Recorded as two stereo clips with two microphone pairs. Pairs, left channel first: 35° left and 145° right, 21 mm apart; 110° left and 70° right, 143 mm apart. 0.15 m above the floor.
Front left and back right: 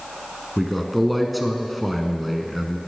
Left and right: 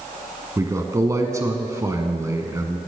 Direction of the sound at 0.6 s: 55° right.